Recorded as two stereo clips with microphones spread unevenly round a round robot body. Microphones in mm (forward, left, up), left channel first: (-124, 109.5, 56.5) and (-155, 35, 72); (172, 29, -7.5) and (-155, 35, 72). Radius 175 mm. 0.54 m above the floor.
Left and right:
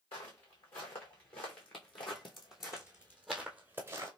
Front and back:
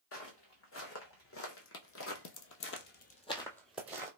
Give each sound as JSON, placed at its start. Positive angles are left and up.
{"t": 0.1, "sound": "footsteps", "azimuth_deg": 55, "distance_m": 1.8}